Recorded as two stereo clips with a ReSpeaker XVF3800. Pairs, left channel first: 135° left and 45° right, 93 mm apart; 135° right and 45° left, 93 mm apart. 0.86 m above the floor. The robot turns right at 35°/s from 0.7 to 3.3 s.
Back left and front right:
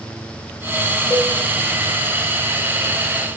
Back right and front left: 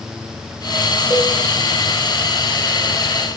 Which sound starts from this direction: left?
A cowbell, at 1.1 s.